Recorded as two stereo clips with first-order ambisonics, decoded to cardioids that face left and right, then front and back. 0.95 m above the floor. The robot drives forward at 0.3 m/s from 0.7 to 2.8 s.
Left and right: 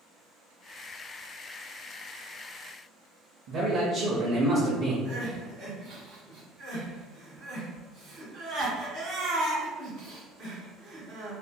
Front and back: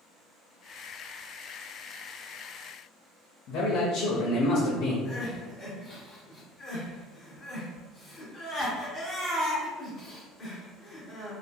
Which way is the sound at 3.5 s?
30° right.